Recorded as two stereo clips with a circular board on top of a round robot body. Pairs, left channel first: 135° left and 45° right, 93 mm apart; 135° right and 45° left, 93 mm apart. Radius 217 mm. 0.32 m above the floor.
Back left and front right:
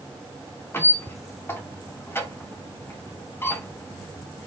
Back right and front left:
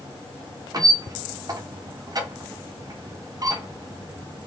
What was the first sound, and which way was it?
A squeak, 75° left.